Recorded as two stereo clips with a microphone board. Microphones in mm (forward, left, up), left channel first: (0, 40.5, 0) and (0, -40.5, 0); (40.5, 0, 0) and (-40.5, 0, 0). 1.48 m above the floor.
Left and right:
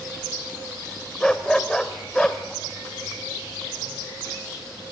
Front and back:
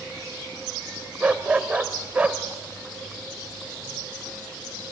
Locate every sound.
1.2 s a dog barking: 155° left, 1.2 m